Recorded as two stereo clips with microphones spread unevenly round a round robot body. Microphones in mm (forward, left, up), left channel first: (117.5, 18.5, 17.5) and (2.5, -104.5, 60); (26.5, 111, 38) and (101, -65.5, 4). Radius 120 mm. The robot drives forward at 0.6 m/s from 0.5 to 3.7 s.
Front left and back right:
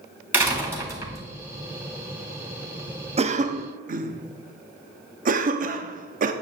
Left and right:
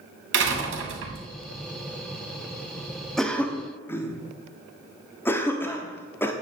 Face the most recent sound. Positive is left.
turn(degrees=-160)